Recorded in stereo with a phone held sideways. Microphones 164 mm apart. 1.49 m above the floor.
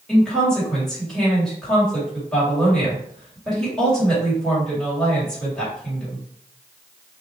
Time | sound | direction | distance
0.1 | a woman speaking | 5° left (ahead or behind) | 3 m